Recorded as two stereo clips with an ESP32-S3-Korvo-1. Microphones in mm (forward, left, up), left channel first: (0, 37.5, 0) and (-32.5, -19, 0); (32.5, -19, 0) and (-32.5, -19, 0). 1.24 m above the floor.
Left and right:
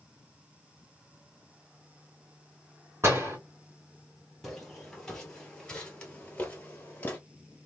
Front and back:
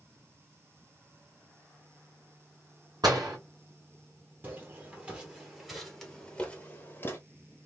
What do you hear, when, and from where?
3.0 s a door slam: 170° right, 2.5 m
4.4 s footsteps: 145° left, 1.5 m; by 7.2 s 15° left, 1.4 m